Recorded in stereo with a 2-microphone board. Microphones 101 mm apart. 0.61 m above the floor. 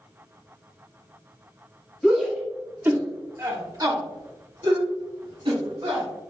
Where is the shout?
10° left (ahead or behind), 0.9 m; by 6.0 s 70° right (ahead or behind), 2 m.